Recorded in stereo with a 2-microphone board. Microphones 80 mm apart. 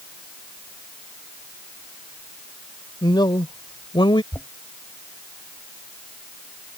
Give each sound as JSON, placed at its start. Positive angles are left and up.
{"t": 3.0, "sound": "a man speaking", "side_deg": 60}
{"t": 4.3, "sound": "knocking", "side_deg": 35}